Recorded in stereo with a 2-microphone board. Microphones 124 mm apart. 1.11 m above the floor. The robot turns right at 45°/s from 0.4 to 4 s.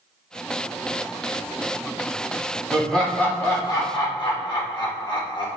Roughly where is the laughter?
Ahead.